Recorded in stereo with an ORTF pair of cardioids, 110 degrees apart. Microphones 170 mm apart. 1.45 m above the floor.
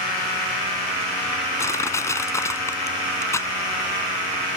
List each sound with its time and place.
1.6 s crushing: 15° left